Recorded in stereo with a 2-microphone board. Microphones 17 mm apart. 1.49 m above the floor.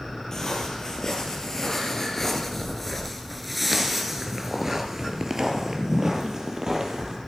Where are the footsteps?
30° left (ahead or behind), 2.5 m; by 7.2 s 35° right (ahead or behind), 2.5 m.